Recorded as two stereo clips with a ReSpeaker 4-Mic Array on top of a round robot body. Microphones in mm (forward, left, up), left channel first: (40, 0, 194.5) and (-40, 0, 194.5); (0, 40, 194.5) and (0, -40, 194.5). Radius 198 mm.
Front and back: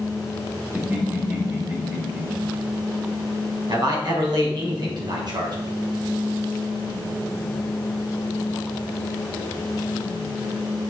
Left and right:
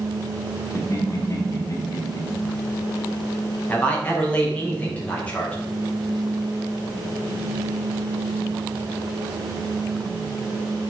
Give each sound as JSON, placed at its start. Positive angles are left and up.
{"t": 0.8, "sound": "laughter", "azimuth_deg": 120, "distance_m": 1.9}
{"t": 3.7, "sound": "a man speaking", "azimuth_deg": 160, "distance_m": 3.0}